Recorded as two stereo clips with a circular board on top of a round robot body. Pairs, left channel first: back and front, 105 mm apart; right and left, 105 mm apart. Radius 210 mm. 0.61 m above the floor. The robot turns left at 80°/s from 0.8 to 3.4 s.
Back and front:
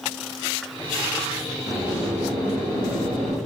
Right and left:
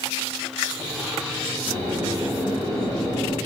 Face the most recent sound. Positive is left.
turn(degrees=-55)